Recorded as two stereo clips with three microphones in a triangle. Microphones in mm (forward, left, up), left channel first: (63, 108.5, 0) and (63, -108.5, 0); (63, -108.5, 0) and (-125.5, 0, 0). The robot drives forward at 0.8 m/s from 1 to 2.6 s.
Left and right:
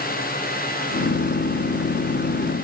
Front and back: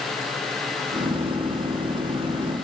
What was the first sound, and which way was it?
Only background noise.